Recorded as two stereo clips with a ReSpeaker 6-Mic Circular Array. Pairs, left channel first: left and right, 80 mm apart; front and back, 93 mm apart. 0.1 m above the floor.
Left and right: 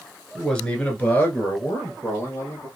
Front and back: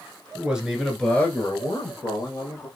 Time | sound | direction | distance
0.3 | a man speaking | 155° left | 1.1 m